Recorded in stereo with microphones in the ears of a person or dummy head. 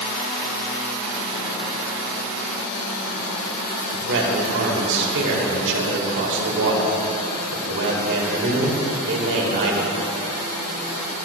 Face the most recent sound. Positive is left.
turn(degrees=-65)  # may be behind; listen again after turning